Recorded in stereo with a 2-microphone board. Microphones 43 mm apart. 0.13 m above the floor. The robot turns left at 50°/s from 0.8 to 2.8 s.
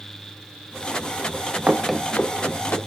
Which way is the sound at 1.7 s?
35° right (ahead or behind).